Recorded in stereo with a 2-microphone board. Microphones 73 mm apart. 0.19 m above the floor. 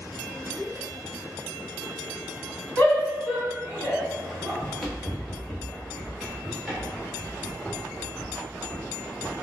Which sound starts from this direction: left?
A shout, at 2.8 s.